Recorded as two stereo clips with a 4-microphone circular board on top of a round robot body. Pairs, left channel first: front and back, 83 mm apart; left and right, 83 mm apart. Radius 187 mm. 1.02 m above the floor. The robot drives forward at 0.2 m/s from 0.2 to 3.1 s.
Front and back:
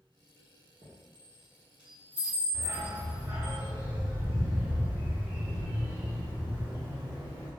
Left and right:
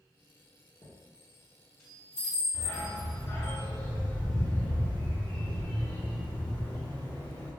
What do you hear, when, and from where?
0.8 s a chime: 145° left, 0.7 m; by 3.5 s 155° left, 1.1 m
2.5 s a dog barking: 130° left, 1.9 m; by 7.5 s 135° left, 1.9 m